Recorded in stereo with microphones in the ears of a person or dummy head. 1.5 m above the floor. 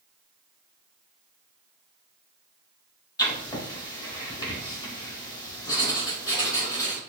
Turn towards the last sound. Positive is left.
turn(degrees=20)  # may be behind; listen again after turning